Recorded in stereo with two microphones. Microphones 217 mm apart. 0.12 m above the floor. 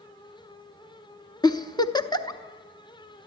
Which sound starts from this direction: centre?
A giggle, at 1.4 s.